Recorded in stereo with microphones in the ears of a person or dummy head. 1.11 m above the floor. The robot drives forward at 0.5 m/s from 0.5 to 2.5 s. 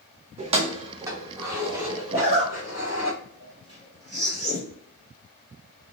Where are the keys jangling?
35° right (ahead or behind), 0.5 m; by 3.1 s 10° right (ahead or behind), 1.4 m.